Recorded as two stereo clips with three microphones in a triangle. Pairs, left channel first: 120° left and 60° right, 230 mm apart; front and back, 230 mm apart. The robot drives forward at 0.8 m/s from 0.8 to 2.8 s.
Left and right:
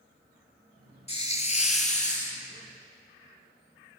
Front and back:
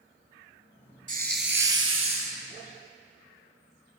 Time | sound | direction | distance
1.1 | a hiss | 160° left | 0.5 m